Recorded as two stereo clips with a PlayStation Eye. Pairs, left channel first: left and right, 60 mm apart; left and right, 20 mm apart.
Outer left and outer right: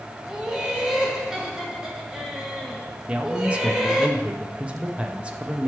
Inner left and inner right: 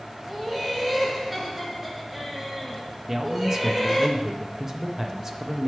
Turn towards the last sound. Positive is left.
turn(degrees=-20)  # may be behind; listen again after turning